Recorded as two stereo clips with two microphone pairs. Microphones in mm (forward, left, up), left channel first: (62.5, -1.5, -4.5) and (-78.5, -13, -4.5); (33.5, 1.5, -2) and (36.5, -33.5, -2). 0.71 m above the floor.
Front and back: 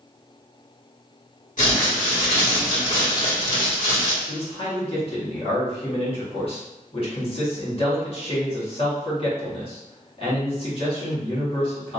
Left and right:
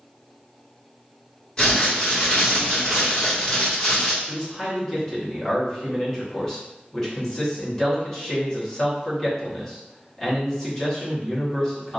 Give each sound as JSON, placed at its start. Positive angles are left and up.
{"t": 1.6, "sound": "crumpling", "azimuth_deg": 25, "distance_m": 2.0}
{"t": 4.2, "sound": "a man speaking", "azimuth_deg": 25, "distance_m": 1.5}